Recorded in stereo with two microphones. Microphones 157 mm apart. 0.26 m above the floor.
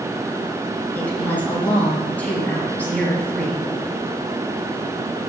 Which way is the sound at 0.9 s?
10° left (ahead or behind).